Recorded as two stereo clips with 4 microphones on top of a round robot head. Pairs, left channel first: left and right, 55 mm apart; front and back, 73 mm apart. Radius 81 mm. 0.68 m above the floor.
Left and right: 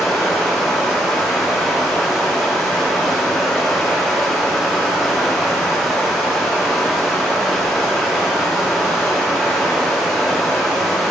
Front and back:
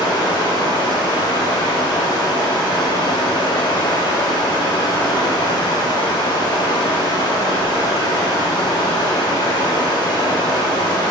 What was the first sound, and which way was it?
Running water, straight ahead.